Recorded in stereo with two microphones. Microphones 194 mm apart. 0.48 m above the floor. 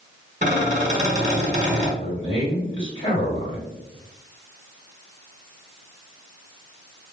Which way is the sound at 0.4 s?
40° right (ahead or behind).